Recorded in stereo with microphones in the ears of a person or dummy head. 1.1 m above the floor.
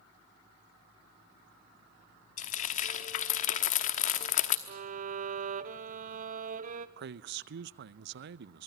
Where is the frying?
45° left (ahead or behind), 1.0 m.